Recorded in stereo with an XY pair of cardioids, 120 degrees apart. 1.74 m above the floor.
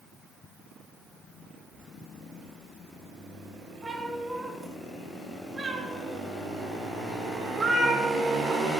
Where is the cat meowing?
20° right, 4.5 m; by 8.6 s 45° right, 2.5 m.